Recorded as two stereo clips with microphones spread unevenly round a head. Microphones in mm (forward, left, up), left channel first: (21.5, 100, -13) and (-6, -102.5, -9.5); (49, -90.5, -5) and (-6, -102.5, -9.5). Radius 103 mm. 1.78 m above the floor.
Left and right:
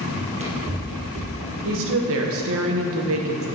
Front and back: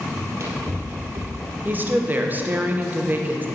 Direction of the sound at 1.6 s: 110° right.